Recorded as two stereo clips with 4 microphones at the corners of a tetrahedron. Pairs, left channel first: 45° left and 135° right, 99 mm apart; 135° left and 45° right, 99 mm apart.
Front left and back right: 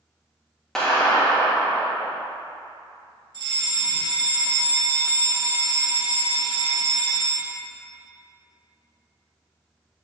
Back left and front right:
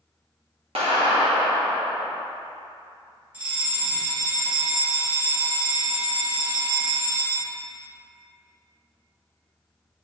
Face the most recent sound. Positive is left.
turn(degrees=-115)